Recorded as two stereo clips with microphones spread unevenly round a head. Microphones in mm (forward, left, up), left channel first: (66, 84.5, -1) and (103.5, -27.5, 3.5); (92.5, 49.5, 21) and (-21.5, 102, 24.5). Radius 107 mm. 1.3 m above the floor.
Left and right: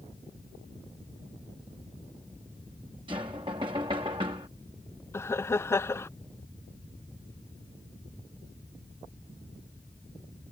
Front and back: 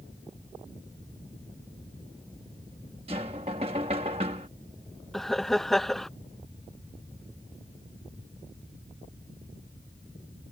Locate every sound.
3.1 s knocking: 140° right
5.1 s laughter: 60° left